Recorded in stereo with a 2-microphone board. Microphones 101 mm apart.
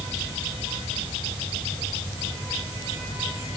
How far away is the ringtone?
I don't hear a ringtone.